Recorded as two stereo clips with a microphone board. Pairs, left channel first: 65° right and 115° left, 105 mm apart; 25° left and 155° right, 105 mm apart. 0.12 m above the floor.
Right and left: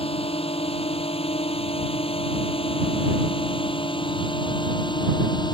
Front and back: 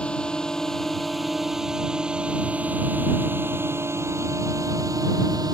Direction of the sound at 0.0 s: 55° right.